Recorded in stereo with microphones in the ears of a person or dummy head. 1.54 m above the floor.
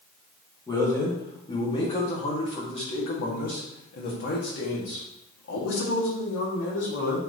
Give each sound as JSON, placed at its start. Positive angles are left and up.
{"t": 0.7, "sound": "a man speaking", "side_deg": 20, "distance_m": 3.0}